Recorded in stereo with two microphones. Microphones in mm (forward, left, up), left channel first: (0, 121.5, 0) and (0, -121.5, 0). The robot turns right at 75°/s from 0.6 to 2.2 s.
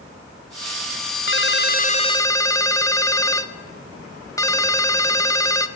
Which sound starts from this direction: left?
A ringtone, at 1.3 s.